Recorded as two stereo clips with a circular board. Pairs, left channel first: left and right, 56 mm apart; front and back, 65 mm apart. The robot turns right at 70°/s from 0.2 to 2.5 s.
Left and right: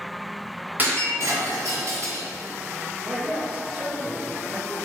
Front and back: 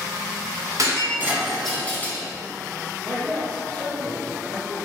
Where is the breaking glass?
150° right, 1.5 m; by 2.2 s 45° right, 1.5 m.